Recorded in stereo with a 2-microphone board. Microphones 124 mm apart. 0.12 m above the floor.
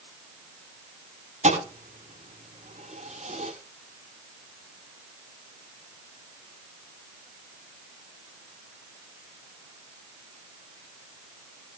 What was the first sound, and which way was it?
A thud, 75° right (ahead or behind).